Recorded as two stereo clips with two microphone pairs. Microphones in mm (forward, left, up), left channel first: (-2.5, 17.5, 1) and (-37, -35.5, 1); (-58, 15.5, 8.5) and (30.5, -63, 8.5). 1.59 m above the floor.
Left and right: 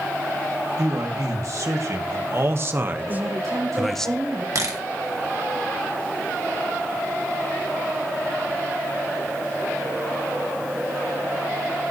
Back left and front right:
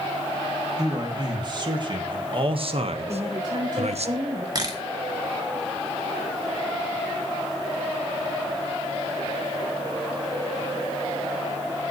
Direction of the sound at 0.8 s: 95° right.